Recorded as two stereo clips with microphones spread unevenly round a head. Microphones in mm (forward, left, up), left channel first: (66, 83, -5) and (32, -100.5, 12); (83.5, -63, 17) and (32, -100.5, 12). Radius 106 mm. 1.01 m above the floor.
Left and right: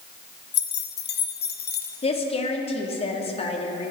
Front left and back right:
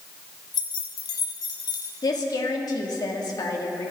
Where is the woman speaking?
25° left, 2.0 m.